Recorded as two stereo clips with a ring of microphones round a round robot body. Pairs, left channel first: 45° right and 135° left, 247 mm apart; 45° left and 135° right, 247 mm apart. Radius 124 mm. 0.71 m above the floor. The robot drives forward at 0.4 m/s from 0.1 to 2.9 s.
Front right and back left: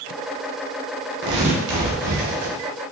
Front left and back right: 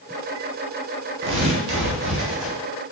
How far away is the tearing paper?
About 0.8 m.